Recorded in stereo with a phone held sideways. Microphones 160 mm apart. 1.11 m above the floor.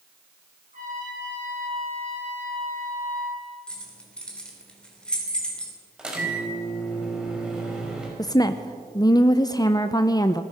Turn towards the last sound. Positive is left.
turn(degrees=25)  # may be behind; listen again after turning